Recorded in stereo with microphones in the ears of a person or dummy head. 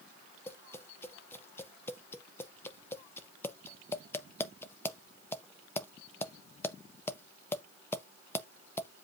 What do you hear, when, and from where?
0.5 s tapping: 15° left (ahead or behind), 0.5 m